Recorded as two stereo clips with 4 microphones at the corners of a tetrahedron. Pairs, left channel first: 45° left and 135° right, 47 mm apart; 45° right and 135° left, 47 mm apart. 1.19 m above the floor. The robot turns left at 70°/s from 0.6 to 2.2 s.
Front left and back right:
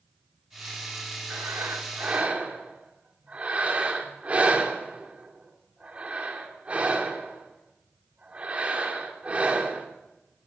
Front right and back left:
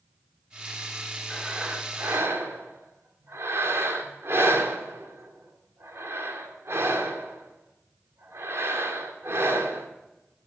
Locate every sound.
1.3 s breathing: 135° right, 2.5 m; by 9.9 s 165° left, 2.5 m